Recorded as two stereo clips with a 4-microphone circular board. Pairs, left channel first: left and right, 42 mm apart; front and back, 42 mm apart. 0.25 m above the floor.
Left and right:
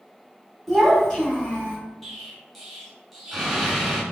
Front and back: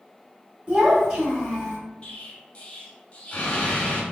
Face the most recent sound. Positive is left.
turn(degrees=5)